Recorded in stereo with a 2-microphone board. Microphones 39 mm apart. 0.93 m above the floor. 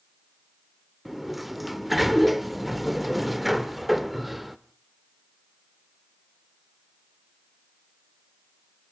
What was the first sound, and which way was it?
A sliding door, centre (ahead or behind).